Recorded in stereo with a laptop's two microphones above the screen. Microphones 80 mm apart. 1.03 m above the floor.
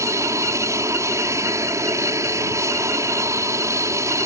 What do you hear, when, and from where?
0.0 s an aircraft: 40° right (ahead or behind)